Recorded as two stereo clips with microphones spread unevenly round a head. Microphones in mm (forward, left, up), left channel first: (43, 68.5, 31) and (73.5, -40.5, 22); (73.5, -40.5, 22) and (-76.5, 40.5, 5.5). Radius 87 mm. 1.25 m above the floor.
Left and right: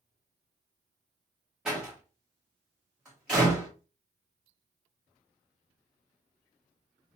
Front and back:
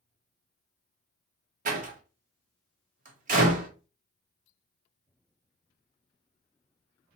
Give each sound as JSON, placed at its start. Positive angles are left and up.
{"t": 1.6, "sound": "a door slam", "azimuth_deg": -160, "distance_m": 0.9}